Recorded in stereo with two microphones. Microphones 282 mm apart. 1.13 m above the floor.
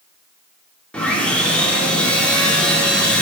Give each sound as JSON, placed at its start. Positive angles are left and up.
{"t": 0.9, "sound": "sawing", "side_deg": 5, "distance_m": 1.9}